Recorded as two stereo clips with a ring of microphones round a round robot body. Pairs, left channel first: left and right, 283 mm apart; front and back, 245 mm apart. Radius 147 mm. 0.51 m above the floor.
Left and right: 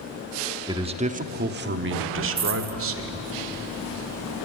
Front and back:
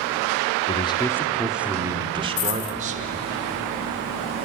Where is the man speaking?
30° right, 1.0 m; by 3.2 s 125° right, 1.9 m.